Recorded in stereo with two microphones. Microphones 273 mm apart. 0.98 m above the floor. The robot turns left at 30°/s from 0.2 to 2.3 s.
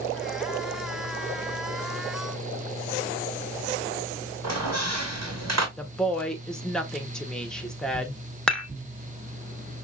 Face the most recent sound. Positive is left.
turn(degrees=5)  # may be behind; listen again after turning